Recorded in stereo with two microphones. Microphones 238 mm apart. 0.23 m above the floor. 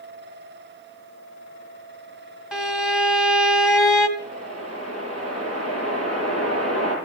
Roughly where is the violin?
Centre.